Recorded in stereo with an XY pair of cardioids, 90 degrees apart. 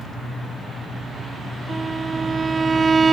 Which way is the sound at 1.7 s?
35° right.